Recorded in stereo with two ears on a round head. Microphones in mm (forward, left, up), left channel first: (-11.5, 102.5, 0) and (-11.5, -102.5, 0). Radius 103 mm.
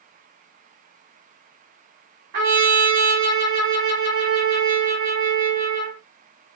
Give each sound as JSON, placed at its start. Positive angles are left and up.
{"t": 2.3, "sound": "a trumpet", "side_deg": -45, "distance_m": 1.6}